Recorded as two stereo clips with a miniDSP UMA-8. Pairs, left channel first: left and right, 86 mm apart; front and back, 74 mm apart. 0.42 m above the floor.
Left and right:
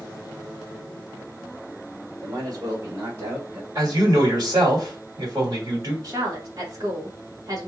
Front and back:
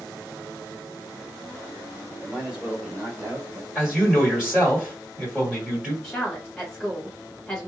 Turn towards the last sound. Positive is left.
turn(degrees=-85)